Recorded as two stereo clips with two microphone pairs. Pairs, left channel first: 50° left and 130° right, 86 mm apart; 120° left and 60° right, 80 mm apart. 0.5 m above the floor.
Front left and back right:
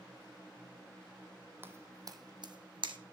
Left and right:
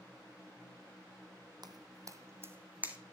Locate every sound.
1.6 s footsteps: 70° right, 1.0 m; by 3.0 s 130° right, 1.4 m